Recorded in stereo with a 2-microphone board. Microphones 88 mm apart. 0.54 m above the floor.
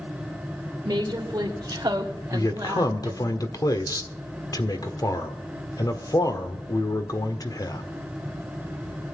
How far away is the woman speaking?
About 2 m.